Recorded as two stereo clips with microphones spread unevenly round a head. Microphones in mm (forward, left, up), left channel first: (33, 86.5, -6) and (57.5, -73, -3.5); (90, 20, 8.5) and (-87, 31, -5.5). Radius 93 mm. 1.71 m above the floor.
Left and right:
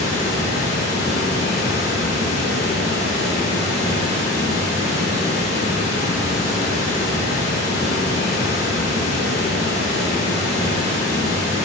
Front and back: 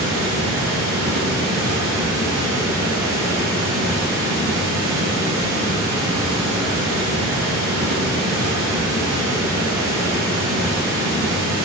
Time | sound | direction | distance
0.0 | running water | 140° left | 1.4 m